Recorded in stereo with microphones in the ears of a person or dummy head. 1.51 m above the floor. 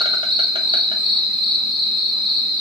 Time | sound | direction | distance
0.0 | an insect | 20° right (ahead or behind) | 0.7 m